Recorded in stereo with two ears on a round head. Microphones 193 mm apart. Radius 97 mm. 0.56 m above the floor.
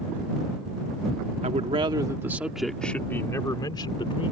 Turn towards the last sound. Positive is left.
turn(degrees=25)  # may be behind; listen again after turning